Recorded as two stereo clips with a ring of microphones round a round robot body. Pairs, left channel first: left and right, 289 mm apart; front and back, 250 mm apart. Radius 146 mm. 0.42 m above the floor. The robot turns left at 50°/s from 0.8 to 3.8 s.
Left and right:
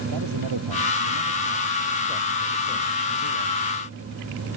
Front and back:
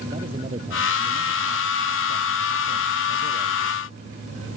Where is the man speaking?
105° right; by 3.8 s 105° left.